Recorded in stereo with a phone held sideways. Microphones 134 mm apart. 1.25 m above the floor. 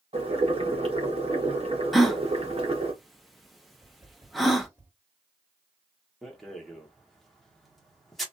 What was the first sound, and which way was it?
Boiling, 45° right (ahead or behind).